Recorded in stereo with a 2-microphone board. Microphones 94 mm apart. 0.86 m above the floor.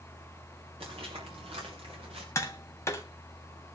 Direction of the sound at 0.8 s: 80° right.